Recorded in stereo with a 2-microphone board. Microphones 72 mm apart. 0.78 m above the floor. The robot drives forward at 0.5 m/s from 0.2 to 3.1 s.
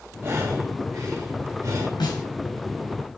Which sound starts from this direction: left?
A snare drum, at 2.0 s.